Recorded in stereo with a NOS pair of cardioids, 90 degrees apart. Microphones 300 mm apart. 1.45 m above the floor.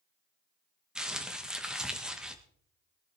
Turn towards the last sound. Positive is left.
turn(degrees=0)